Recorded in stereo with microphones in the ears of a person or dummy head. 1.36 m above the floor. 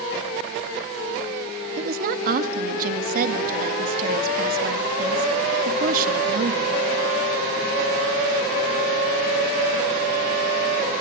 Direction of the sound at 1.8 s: 55° right (ahead or behind).